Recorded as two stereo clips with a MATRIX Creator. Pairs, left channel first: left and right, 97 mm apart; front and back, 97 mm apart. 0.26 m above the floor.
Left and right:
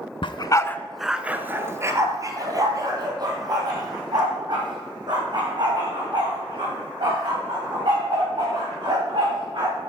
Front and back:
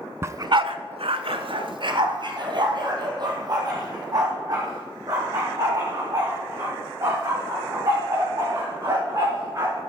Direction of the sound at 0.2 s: 115° left.